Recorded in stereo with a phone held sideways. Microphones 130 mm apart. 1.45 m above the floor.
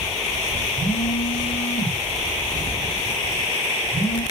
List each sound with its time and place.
0.8 s a phone buzzing: 85° left, 5 m